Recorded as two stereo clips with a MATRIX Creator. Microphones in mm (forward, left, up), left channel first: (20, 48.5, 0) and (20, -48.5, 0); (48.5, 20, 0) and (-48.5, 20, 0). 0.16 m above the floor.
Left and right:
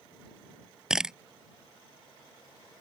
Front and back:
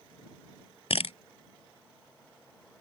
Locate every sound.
0.9 s a camera shutter: 5° right